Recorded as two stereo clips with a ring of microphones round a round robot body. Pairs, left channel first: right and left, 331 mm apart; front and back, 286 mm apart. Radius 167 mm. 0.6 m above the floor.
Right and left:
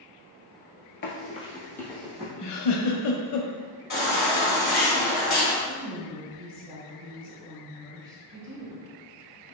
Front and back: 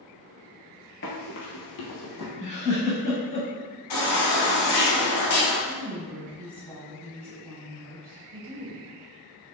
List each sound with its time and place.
1.0 s running footsteps: 45° right, 0.7 m; by 2.3 s straight ahead, 1.6 m
2.4 s a giggle: 65° right, 0.5 m
3.9 s a baby crying: 25° right, 1.8 m
5.7 s a woman speaking: 170° left, 1.9 m